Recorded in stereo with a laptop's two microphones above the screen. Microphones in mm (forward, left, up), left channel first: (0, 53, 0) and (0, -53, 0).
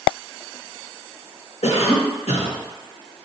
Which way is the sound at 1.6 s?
75° left (ahead or behind).